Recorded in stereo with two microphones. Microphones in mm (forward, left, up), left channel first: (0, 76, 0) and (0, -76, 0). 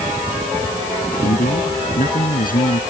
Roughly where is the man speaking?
Left.